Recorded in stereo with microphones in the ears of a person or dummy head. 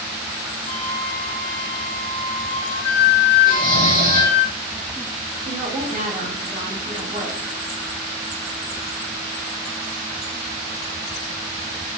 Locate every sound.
0.7 s a flute: 35° left (ahead or behind), 0.5 m
3.5 s snoring: 20° right (ahead or behind), 1.1 m
5.5 s a woman speaking: 35° right (ahead or behind), 2 m